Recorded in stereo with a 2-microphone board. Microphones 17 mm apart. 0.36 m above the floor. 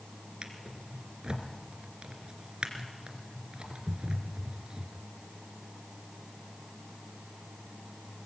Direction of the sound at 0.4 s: 75° right (ahead or behind).